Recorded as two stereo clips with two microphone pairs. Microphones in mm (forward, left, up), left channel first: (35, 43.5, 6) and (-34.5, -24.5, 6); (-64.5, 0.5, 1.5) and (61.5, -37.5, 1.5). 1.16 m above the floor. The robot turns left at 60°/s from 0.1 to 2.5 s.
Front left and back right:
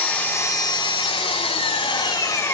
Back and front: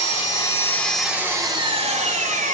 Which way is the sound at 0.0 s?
125° left.